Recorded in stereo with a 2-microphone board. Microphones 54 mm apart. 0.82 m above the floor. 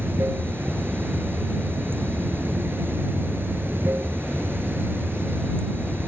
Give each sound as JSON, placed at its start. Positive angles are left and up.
{"t": 0.0, "sound": "running water", "side_deg": -40}